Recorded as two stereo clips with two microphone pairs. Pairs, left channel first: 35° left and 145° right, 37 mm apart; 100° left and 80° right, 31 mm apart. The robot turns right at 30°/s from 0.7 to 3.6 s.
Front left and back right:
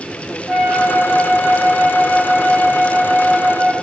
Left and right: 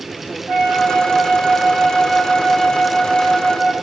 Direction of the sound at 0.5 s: 70° right.